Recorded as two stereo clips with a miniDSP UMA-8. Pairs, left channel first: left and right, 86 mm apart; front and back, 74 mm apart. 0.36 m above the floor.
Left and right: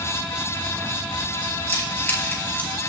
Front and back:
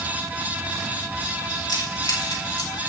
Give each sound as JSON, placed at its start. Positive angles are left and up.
{"t": 1.7, "sound": "keys jangling", "azimuth_deg": 30, "distance_m": 4.5}